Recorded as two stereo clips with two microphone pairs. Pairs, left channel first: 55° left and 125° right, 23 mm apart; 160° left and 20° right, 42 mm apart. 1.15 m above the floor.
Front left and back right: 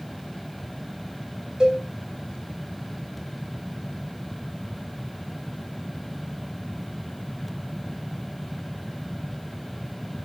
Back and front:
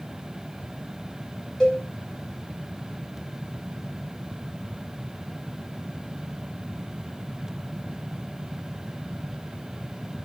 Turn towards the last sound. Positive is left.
turn(degrees=-145)